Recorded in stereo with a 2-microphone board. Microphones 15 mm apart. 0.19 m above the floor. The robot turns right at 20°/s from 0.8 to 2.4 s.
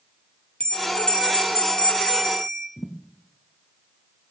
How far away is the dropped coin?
I don't hear a dropped coin.